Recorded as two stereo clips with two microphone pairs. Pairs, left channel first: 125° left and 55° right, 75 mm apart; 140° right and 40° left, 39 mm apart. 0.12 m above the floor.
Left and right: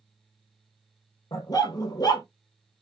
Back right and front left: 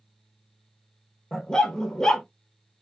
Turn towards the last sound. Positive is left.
turn(degrees=150)